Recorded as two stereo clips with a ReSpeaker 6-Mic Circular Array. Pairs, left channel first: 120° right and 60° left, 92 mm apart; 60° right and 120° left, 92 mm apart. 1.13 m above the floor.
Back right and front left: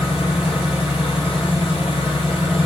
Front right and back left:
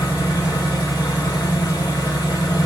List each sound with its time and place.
0.0 s an engine running: 105° right, 0.9 m